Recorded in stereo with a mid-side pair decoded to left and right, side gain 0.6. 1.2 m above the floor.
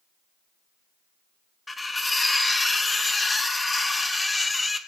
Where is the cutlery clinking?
15° left, 1.0 m.